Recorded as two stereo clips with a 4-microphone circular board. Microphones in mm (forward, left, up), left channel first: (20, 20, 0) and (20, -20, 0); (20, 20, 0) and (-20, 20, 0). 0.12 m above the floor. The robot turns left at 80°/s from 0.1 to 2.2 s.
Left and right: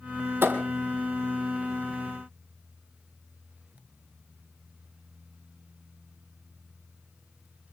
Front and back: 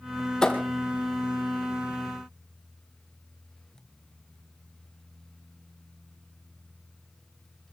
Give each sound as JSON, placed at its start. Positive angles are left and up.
{"t": 0.4, "sound": "a thud", "azimuth_deg": -70, "distance_m": 2.0}